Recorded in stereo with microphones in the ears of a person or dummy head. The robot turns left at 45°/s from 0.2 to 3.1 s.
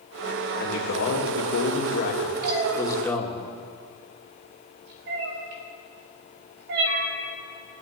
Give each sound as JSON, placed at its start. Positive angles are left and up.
{"t": 0.6, "sound": "a man speaking", "azimuth_deg": 120, "distance_m": 2.0}
{"t": 2.4, "sound": "a cat meowing", "side_deg": -50, "distance_m": 1.3}